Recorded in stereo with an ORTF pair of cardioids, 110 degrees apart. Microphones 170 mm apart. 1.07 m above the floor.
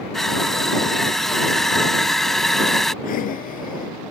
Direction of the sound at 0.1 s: Straight ahead.